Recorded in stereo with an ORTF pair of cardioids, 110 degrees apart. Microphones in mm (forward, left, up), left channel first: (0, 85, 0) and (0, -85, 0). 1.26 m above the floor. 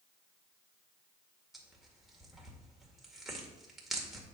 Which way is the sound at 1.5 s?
Straight ahead.